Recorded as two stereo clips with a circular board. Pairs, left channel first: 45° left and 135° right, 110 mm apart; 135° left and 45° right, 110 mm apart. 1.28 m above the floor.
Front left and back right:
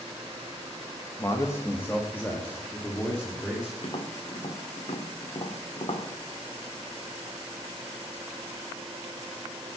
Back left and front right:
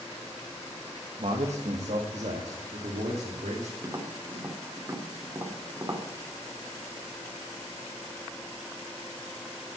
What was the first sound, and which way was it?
A man speaking, 20° right.